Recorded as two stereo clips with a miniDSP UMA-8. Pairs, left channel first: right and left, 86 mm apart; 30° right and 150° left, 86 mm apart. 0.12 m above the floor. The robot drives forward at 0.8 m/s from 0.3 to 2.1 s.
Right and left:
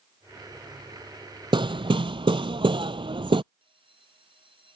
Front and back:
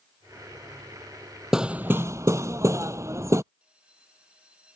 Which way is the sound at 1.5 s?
65° left.